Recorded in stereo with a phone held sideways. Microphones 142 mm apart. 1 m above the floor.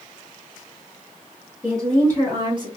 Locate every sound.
1.6 s a woman speaking: 15° right (ahead or behind), 1.8 m; by 2.8 s 40° right (ahead or behind), 1.0 m